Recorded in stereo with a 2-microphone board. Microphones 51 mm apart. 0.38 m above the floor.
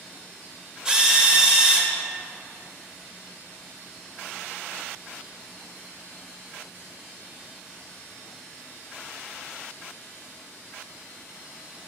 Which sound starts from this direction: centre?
A drill, at 0.8 s.